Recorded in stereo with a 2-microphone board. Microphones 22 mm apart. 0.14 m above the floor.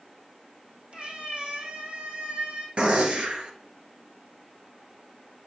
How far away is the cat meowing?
About 1.7 m.